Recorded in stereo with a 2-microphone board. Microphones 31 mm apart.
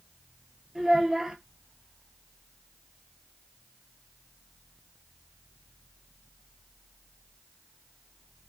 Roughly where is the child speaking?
Centre.